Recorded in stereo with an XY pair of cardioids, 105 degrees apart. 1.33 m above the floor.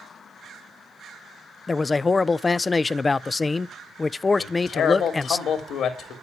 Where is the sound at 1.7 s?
30° left, 0.5 m.